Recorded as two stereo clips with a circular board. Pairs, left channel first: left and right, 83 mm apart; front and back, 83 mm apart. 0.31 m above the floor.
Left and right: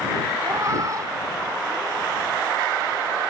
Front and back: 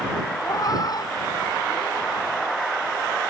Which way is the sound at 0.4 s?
40° right.